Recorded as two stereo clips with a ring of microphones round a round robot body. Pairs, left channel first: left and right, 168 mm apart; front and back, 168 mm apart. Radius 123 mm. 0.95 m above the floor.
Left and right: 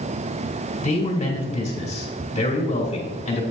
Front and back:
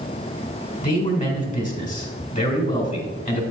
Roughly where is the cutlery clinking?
No cutlery clinking in this recording.